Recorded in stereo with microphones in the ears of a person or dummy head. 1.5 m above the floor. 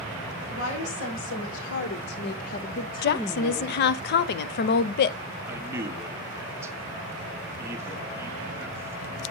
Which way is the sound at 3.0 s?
55° left (ahead or behind).